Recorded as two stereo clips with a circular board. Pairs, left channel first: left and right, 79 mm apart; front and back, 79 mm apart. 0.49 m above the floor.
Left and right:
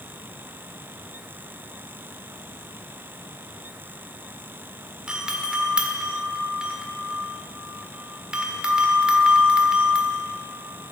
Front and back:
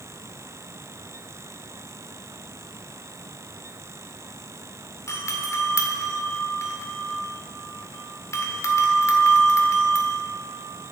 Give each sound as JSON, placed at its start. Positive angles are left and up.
{"t": 5.1, "sound": "a doorbell", "azimuth_deg": -15, "distance_m": 1.8}